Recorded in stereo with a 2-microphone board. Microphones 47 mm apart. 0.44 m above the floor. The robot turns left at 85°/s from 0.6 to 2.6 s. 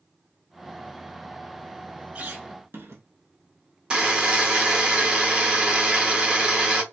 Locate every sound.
2.1 s a squeak: 40° right, 0.6 m; by 3.0 s 80° right, 0.6 m
3.9 s a buzzer: 20° right (ahead or behind), 0.8 m